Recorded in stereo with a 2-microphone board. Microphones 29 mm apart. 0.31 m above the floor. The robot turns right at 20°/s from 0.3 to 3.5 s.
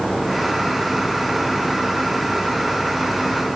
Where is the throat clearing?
No throat clearing in this recording.